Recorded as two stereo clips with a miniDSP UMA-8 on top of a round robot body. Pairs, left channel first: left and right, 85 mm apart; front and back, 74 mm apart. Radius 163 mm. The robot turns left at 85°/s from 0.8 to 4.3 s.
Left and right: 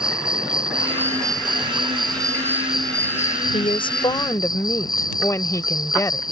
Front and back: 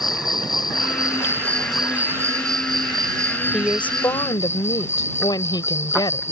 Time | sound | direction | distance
0.0 | an insect | 10° right | ?
3.5 | a woman speaking | 95° left | ?